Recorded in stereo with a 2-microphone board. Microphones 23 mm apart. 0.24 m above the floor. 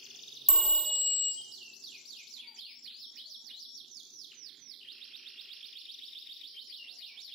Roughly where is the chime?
Centre.